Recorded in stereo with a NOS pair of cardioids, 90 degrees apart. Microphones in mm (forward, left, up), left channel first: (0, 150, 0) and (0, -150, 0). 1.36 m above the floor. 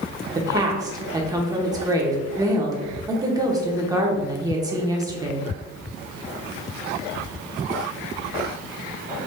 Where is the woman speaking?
10° right, 1.1 m.